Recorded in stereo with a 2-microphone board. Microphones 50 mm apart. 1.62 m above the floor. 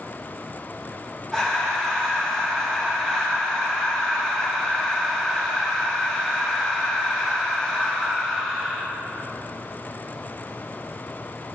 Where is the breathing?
15° left (ahead or behind), 1.2 m.